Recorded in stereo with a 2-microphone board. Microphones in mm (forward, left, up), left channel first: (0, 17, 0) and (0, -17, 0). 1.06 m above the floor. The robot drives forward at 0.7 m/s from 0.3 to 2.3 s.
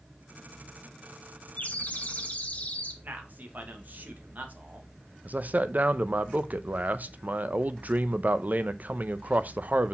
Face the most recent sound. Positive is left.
turn(degrees=-50)  # may be behind; listen again after turning